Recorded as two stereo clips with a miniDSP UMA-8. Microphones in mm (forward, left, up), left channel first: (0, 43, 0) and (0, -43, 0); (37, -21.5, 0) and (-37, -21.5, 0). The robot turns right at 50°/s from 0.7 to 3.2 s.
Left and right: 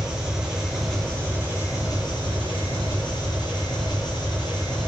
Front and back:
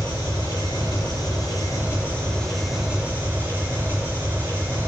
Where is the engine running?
5° right, 4.5 m; by 4.9 s 120° left, 4.5 m.